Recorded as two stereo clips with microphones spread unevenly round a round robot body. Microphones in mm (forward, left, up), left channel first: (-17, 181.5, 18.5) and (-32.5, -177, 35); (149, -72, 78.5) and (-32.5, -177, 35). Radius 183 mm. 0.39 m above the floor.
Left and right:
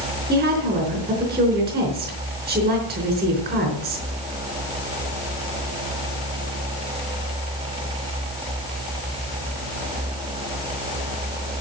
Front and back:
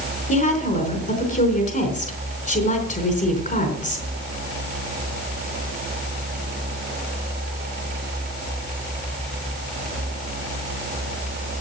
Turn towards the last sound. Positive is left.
turn(degrees=-15)